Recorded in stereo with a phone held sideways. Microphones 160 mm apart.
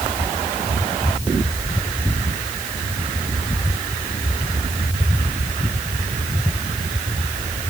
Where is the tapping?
No tapping in this recording.